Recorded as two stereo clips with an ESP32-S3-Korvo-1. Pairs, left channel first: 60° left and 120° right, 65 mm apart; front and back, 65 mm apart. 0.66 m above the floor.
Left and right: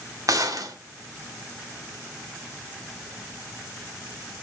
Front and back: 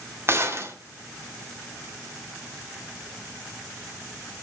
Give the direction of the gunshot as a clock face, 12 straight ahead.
5 o'clock.